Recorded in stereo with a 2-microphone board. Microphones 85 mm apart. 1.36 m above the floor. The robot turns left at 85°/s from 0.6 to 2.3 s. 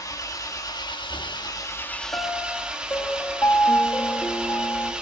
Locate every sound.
0.0 s an engine running: 135° left, 1.4 m; by 5.0 s 10° right, 1.4 m
2.1 s a piano: 30° left (ahead or behind), 0.9 m; by 4.9 s 35° left (ahead or behind), 0.9 m